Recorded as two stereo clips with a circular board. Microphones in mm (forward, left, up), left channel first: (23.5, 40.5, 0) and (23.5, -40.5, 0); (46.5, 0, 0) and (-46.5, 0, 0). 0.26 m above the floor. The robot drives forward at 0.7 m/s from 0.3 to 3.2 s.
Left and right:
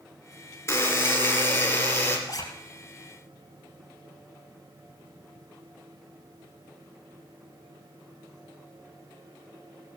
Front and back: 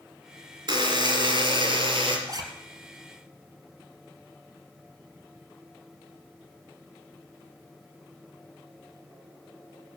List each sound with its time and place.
0.7 s a buzzer: 150° left, 2.5 m; by 2.2 s 160° left, 3.5 m
2.3 s a zipper: 135° left, 2.5 m